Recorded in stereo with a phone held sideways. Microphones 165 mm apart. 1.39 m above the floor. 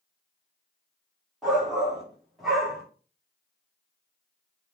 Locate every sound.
1.4 s a shout: centre (ahead or behind), 4 m